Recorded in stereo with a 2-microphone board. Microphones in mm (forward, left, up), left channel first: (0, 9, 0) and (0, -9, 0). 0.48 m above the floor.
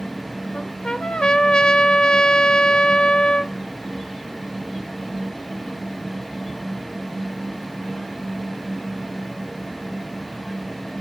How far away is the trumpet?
About 0.5 m.